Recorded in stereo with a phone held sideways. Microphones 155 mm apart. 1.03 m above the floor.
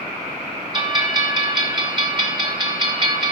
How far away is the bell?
About 1.5 m.